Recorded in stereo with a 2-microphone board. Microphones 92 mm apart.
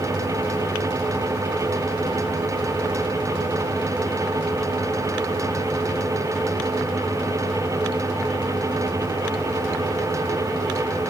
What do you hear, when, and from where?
Only background noise.